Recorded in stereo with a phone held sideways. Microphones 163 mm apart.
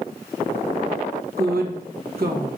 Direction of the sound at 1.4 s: 65° right (ahead or behind).